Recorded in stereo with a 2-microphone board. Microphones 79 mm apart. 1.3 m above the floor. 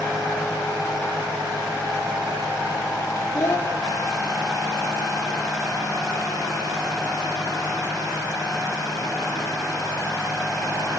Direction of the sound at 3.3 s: 35° left (ahead or behind).